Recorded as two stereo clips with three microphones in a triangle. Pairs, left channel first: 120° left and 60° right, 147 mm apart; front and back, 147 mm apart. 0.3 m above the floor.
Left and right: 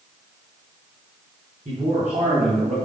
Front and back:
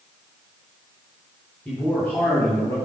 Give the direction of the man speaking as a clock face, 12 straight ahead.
3 o'clock.